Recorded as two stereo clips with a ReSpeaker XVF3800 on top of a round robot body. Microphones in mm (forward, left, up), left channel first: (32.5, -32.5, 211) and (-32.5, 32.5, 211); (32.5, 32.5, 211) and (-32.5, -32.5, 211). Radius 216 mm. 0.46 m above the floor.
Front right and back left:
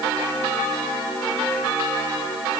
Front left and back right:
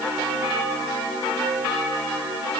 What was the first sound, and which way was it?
Only background noise.